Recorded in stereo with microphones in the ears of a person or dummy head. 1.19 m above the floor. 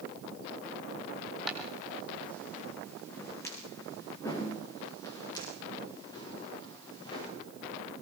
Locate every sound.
1.5 s footsteps: 5° left (ahead or behind), 3.5 m; by 7.3 s 35° left (ahead or behind), 10 m